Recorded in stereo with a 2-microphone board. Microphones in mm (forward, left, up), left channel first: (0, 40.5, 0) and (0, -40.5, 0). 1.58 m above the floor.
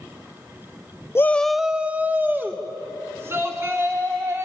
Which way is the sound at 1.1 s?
30° left (ahead or behind).